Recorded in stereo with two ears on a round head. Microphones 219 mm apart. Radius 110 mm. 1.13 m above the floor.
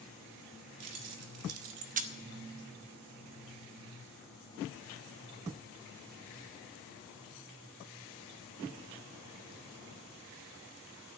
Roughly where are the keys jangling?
Right.